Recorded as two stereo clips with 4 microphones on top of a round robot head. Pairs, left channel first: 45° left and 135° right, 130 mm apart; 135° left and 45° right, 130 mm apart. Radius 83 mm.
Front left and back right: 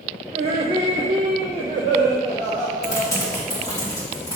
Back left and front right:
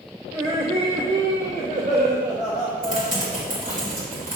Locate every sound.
0.3 s laughter: 110° right, 1.3 m; by 3.8 s 60° right, 5 m
2.8 s typing on a keyboard: 20° right, 3.5 m